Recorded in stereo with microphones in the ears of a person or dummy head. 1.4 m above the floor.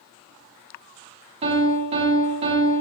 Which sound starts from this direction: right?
A piano, at 1.4 s.